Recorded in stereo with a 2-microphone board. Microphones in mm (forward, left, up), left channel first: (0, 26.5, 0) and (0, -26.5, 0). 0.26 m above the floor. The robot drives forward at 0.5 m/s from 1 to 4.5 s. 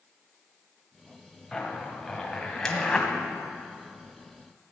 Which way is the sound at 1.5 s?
10° left (ahead or behind).